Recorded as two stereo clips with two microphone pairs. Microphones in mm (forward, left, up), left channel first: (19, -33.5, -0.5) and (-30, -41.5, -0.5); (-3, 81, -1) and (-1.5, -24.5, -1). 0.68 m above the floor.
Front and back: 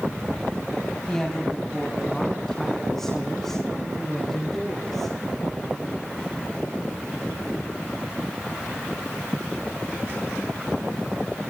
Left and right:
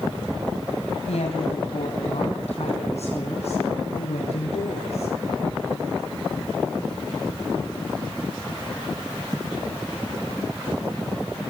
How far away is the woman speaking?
About 3.5 m.